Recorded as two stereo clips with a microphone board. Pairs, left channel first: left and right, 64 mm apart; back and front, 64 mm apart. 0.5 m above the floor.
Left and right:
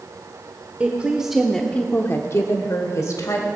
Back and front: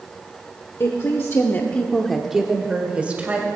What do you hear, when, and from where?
0.8 s a woman speaking: 150° right, 1.2 m; by 3.5 s 65° left, 2 m